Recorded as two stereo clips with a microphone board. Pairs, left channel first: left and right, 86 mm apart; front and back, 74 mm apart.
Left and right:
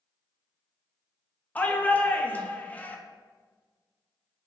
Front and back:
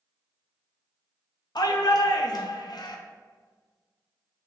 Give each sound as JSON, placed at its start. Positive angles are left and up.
{"t": 1.6, "sound": "a shout", "azimuth_deg": 20, "distance_m": 0.6}